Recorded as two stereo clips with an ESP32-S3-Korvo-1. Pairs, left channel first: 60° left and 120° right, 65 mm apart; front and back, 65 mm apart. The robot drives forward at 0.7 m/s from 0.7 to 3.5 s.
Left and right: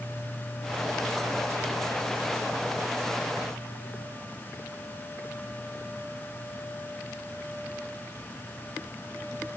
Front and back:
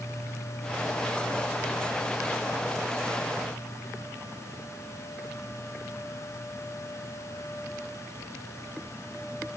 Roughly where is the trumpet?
No trumpet in this recording.